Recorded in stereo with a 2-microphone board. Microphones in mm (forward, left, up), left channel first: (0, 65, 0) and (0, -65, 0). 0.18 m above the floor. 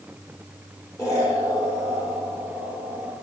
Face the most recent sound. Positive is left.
turn(degrees=25)  # may be behind; listen again after turning